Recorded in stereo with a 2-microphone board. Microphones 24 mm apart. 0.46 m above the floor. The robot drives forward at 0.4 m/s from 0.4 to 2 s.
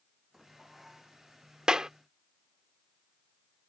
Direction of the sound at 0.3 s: 10° right (ahead or behind).